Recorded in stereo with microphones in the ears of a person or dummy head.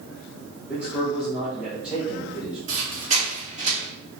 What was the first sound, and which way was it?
A man speaking, 5° right (ahead or behind).